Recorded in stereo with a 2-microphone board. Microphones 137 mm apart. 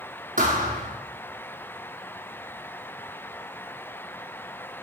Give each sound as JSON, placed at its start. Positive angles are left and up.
{"t": 0.4, "sound": "a thud", "side_deg": -80, "distance_m": 3.0}